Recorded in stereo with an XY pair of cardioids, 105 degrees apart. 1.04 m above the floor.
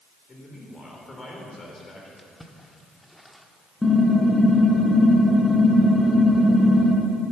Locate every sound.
0.3 s a man speaking: 30° left, 4 m
2.2 s a splash: 5° left, 1.3 m
3.8 s typing on a keyboard: 15° left, 3 m